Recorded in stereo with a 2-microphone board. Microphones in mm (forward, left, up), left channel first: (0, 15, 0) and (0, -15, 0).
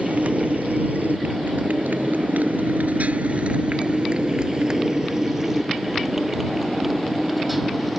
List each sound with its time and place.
0.0 s a motorcycle: 60° right (ahead or behind); by 8.0 s 5° right (ahead or behind)